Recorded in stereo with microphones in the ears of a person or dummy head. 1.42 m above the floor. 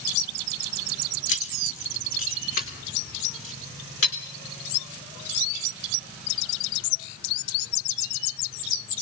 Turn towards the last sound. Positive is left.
turn(degrees=50)  # may be behind; listen again after turning